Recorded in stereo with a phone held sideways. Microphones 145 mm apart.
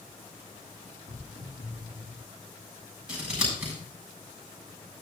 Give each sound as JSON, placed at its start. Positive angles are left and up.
{"t": 1.1, "sound": "footsteps", "side_deg": 65, "distance_m": 6.5}
{"t": 3.1, "sound": "scissors", "side_deg": -5, "distance_m": 6.5}